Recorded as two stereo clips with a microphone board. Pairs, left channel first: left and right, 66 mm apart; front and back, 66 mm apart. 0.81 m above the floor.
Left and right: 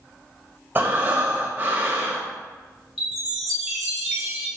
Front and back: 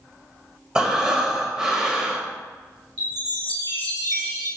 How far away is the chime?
About 1.6 m.